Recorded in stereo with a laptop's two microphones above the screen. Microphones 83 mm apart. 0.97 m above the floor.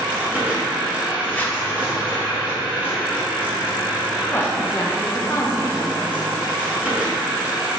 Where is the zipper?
20° left (ahead or behind), 1.5 m.